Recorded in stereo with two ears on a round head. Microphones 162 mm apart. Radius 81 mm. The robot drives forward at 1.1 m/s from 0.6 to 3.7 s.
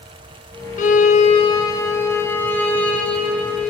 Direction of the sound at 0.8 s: 40° left (ahead or behind).